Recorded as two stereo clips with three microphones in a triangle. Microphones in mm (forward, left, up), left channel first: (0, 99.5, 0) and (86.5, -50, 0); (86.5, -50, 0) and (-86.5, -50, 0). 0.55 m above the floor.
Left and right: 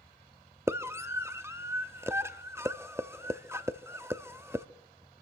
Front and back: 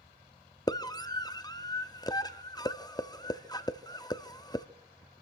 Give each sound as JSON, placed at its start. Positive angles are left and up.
{"t": 0.7, "sound": "a scream", "azimuth_deg": -10, "distance_m": 0.6}